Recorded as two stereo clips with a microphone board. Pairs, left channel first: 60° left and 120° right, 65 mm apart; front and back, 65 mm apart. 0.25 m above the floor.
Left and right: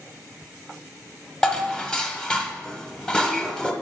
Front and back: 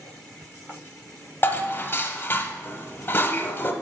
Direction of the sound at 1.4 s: 5° right.